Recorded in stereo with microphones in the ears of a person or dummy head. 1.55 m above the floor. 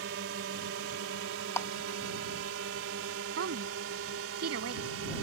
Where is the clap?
15° left (ahead or behind).